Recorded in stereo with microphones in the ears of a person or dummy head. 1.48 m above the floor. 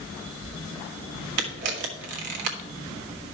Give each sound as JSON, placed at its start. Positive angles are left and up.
{"t": 1.4, "sound": "a camera shutter", "side_deg": -60, "distance_m": 1.5}